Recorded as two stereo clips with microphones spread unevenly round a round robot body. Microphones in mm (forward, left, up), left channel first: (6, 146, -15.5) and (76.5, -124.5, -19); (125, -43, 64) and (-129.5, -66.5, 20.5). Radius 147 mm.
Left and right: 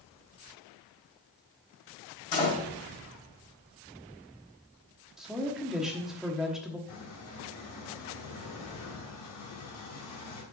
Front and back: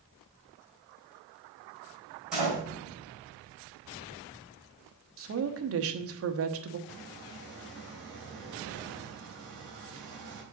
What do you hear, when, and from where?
2.3 s a door slam: 100° left, 4.5 m
5.2 s a woman speaking: 165° right, 1.1 m
6.9 s a squeak: 135° left, 3.5 m